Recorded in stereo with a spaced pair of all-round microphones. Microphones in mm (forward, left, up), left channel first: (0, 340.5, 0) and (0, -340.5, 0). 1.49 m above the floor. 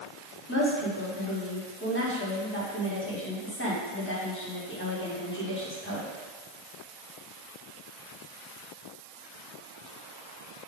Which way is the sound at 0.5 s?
15° left (ahead or behind).